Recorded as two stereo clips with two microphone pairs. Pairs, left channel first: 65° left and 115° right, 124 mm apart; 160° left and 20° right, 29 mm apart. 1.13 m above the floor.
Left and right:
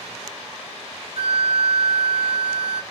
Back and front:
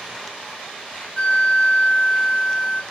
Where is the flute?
145° right, 1.3 m.